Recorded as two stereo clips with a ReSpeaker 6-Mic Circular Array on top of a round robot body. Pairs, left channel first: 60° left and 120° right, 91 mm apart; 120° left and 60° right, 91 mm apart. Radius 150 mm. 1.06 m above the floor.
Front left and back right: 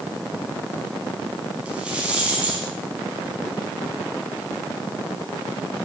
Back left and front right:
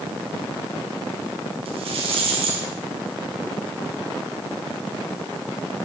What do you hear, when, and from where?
1.6 s a rattle: 40° right, 4.5 m